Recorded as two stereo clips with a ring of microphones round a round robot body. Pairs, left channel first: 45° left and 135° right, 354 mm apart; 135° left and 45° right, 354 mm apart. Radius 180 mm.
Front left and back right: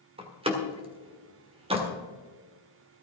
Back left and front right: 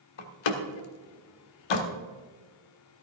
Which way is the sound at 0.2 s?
150° left.